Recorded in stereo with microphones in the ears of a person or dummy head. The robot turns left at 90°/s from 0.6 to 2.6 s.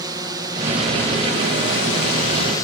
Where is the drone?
160° right; by 2.6 s 20° left.